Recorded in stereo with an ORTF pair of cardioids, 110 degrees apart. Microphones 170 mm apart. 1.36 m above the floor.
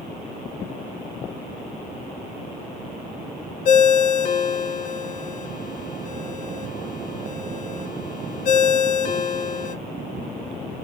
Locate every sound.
3.6 s a ringtone: 55° left, 0.6 m